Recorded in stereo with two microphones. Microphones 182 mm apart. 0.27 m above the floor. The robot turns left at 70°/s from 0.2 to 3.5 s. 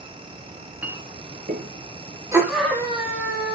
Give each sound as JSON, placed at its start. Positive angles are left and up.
{"t": 0.5, "sound": "a clink", "side_deg": 15, "distance_m": 2.5}
{"t": 2.3, "sound": "a scream", "azimuth_deg": -160, "distance_m": 7.0}